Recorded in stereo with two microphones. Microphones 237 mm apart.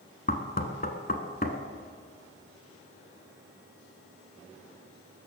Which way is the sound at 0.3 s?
35° left (ahead or behind).